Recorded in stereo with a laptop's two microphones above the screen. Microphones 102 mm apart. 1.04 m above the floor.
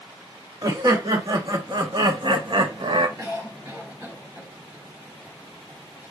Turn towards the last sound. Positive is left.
turn(degrees=-25)  # may be behind; listen again after turning